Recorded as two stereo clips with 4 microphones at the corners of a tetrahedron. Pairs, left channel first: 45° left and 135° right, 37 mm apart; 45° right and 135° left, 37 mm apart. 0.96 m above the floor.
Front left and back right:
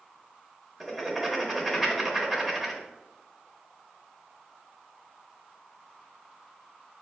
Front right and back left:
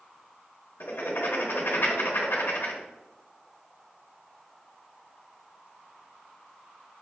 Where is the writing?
45° right, 0.8 m.